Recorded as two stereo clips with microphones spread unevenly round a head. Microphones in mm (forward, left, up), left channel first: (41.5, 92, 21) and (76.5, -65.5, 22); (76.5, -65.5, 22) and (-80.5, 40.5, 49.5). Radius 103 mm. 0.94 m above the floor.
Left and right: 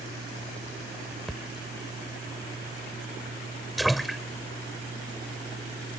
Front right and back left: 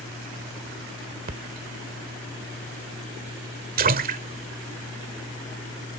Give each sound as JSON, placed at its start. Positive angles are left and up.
{"t": 1.3, "sound": "a splash", "azimuth_deg": -165}